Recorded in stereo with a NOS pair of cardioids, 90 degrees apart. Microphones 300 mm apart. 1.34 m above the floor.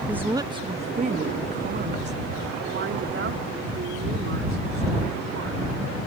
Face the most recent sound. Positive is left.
turn(degrees=-50)